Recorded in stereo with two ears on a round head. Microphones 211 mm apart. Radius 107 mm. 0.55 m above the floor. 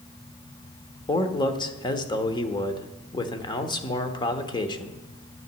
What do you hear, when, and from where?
1.1 s a man speaking: 20° left (ahead or behind), 1.2 m